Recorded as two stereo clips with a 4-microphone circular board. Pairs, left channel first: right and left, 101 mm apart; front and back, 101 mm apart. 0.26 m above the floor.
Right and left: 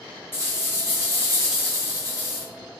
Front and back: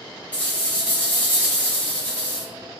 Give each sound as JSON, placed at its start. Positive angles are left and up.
{"t": 0.3, "sound": "a rattle", "azimuth_deg": -65, "distance_m": 1.5}